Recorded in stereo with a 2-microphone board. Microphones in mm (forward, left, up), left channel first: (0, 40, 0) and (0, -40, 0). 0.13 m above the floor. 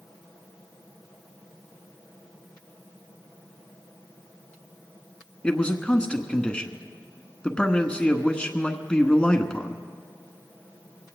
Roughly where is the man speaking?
Centre.